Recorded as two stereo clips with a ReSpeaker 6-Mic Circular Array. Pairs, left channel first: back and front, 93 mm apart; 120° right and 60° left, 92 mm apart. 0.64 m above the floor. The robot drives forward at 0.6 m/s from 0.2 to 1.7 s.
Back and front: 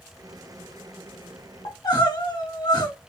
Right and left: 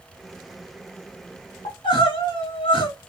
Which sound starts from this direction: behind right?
Crying, at 1.6 s.